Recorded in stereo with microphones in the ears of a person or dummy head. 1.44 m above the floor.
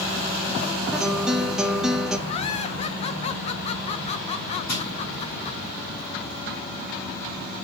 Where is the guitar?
5° right (ahead or behind), 0.6 m.